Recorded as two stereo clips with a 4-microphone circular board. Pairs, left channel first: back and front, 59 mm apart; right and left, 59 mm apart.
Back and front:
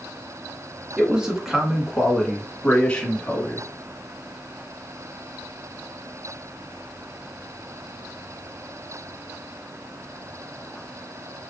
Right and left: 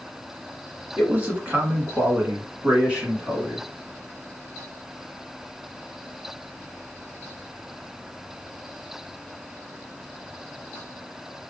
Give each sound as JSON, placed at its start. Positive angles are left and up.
{"t": 1.0, "sound": "a man speaking", "azimuth_deg": 55, "distance_m": 1.6}